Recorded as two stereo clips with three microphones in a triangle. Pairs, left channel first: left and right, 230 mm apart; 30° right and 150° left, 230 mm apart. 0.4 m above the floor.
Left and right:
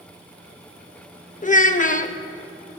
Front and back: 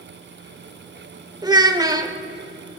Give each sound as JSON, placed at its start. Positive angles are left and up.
{"t": 1.4, "sound": "a child speaking", "azimuth_deg": 95, "distance_m": 0.6}